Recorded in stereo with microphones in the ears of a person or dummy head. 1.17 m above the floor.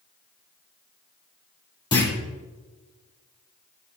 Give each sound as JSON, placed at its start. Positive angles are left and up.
{"t": 1.9, "sound": "a clunk", "side_deg": 20, "distance_m": 3.5}